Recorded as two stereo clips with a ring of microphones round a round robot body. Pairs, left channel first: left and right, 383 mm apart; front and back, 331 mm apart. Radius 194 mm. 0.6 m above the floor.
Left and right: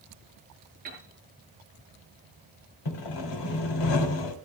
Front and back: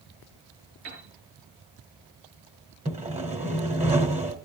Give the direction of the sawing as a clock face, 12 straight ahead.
8 o'clock.